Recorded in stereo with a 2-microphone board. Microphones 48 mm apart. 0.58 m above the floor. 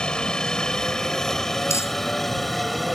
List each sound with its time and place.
0.0 s a helicopter: 20° left (ahead or behind); by 3.0 s centre (ahead or behind)
1.7 s crumpling: 90° left